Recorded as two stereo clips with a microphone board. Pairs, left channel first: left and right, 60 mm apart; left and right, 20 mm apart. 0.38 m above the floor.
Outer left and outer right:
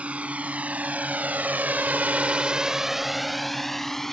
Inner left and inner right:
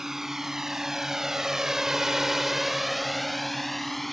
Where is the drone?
20° right (ahead or behind); by 4.1 s 5° left (ahead or behind).